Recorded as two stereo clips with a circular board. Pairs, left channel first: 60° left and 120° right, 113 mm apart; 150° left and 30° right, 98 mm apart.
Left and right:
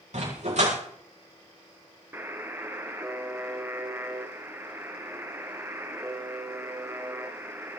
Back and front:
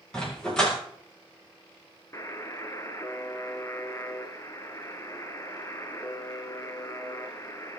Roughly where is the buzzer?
Behind.